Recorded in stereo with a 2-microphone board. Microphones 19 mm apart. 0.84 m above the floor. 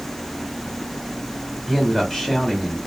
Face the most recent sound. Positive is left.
turn(degrees=10)  # may be behind; listen again after turning